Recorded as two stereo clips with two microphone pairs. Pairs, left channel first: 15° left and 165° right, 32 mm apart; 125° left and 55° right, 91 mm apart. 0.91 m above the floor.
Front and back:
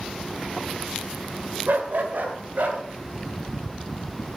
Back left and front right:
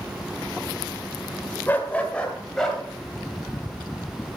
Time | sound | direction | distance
1.7 | a dog barking | 165° right | 1.5 m